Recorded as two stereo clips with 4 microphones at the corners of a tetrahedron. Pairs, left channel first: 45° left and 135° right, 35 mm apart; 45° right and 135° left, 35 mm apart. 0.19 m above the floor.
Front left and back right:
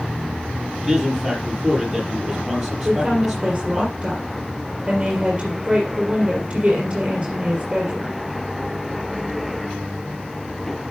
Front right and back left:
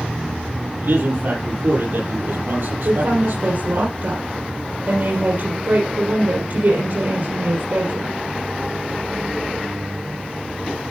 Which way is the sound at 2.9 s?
150° left.